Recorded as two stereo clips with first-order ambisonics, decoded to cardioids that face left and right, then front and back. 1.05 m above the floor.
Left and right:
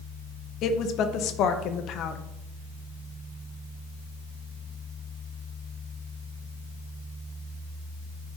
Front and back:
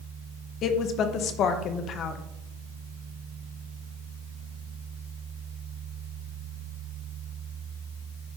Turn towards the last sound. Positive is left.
turn(degrees=50)